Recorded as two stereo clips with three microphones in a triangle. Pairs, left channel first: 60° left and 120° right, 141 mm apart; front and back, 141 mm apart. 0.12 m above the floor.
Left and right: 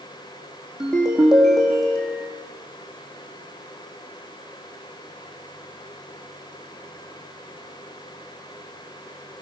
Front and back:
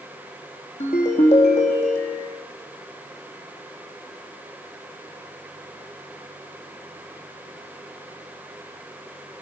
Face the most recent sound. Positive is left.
turn(degrees=-30)